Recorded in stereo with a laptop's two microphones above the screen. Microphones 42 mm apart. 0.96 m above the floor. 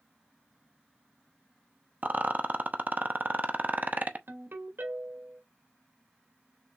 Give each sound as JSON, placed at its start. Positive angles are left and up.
{"t": 2.0, "sound": "a rattle", "side_deg": -45, "distance_m": 0.8}
{"t": 4.3, "sound": "a ringtone", "side_deg": -65, "distance_m": 2.5}